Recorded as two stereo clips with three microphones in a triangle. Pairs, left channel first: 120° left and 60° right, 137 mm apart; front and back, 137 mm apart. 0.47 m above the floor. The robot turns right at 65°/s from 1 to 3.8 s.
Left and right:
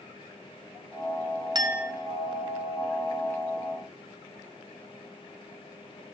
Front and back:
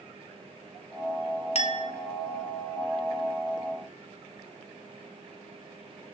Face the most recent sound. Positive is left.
turn(degrees=135)